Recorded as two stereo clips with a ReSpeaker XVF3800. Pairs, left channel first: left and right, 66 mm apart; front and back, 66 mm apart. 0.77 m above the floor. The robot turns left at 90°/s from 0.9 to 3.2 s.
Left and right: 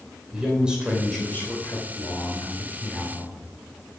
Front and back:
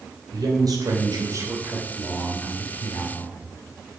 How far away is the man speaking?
About 3 m.